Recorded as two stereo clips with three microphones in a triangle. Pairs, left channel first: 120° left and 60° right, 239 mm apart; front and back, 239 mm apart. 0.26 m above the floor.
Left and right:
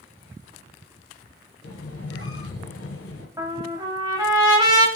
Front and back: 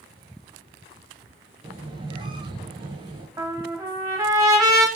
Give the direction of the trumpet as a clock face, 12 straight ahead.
4 o'clock.